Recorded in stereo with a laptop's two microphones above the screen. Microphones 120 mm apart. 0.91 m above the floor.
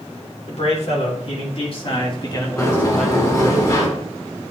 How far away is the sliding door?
About 2 m.